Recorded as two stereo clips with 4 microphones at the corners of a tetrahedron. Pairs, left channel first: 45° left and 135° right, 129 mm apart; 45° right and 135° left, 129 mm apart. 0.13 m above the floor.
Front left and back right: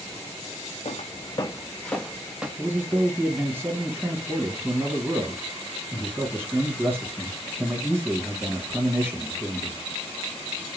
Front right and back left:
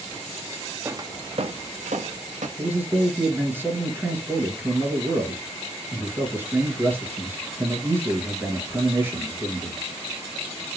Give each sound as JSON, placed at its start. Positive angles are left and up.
{"t": 0.8, "sound": "footsteps", "azimuth_deg": 70, "distance_m": 0.5}
{"t": 2.6, "sound": "a man speaking", "azimuth_deg": 180, "distance_m": 1.2}